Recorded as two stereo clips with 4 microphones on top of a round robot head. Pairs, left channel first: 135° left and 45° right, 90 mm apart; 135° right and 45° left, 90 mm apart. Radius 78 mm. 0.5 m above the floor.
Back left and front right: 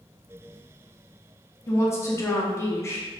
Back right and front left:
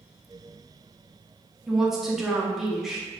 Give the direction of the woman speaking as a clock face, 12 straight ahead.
8 o'clock.